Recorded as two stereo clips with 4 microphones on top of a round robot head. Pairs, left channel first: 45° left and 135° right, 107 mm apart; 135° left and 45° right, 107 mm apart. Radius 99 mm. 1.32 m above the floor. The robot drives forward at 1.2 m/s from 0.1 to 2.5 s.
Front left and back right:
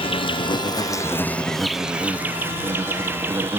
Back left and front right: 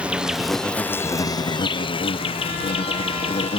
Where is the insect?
35° left; by 3.6 s 155° left.